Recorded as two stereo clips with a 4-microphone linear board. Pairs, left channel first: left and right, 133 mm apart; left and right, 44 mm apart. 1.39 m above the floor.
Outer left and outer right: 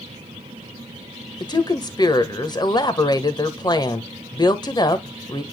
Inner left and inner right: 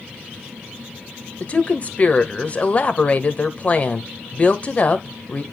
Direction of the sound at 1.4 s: 30° left (ahead or behind).